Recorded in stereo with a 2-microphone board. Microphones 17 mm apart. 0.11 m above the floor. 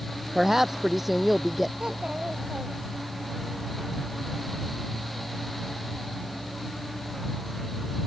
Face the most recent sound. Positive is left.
turn(degrees=-70)  # may be behind; listen again after turning